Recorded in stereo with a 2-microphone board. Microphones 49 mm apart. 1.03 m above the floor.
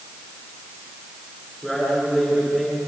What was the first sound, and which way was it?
A man speaking, 5° left (ahead or behind).